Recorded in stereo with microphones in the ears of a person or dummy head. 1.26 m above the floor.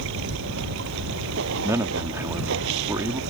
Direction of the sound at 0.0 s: 75° right (ahead or behind).